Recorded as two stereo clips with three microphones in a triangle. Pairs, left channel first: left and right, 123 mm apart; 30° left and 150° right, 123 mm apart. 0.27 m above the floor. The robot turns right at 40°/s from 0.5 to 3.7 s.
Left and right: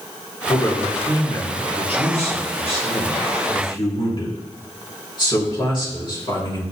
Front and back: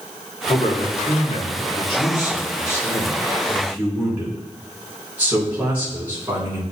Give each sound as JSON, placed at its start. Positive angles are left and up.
{"t": 0.5, "sound": "a man speaking", "azimuth_deg": 10, "distance_m": 3.5}